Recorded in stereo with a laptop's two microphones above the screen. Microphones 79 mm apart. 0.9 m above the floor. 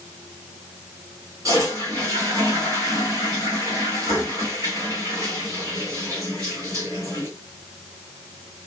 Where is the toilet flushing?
45° right (ahead or behind), 1.9 m.